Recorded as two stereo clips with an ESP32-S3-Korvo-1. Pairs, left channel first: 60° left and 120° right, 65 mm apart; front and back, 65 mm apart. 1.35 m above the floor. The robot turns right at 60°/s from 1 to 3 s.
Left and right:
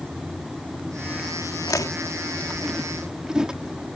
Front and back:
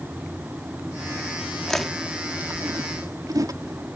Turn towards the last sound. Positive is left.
turn(degrees=160)